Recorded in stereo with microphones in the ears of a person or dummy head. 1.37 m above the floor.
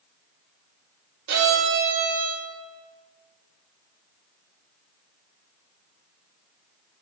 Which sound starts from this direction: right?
A violin, at 1.3 s.